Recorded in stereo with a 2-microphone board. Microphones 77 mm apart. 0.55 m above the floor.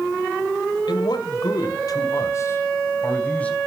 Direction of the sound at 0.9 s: 70° left (ahead or behind).